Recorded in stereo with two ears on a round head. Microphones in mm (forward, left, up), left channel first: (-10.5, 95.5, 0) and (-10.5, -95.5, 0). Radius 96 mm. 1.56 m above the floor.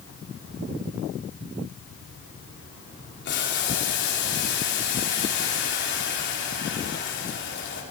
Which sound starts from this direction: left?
Boiling, at 3.2 s.